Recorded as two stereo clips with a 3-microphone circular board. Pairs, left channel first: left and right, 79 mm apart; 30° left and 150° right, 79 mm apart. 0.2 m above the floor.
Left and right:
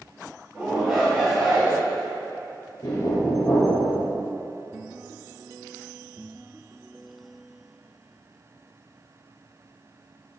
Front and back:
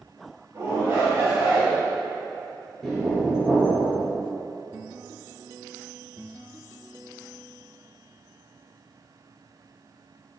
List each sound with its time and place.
0.5 s a shout: 150° right, 1.8 m
2.8 s knocking: 120° left, 2 m